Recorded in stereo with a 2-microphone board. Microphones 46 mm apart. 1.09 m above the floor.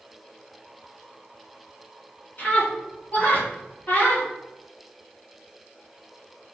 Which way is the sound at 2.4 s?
40° left (ahead or behind).